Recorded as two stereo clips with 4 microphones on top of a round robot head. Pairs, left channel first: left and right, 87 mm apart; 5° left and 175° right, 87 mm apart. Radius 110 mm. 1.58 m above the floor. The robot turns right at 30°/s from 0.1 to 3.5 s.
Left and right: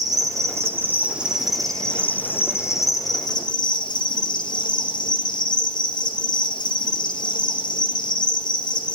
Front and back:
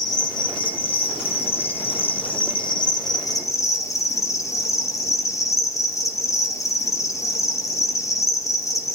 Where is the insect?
45° right, 3.5 m; by 9.0 s 55° left, 3.5 m.